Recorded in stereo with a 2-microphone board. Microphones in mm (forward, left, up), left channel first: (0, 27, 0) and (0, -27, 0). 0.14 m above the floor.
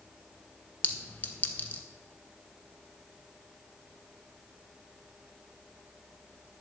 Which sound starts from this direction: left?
A clink, at 0.8 s.